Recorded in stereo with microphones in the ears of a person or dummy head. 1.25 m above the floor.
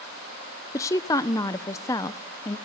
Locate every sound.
0.7 s a woman speaking: 15° left (ahead or behind), 0.6 m